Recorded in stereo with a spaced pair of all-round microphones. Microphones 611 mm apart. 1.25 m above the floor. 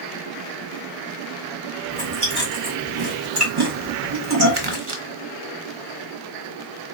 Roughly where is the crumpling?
Right.